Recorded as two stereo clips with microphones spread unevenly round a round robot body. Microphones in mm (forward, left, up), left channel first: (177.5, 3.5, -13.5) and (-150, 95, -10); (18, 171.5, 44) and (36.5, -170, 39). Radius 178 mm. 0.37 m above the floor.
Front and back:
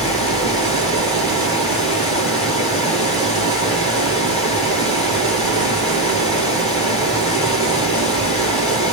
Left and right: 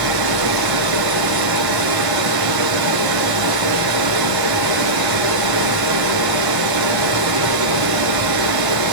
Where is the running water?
115° right, 2 m.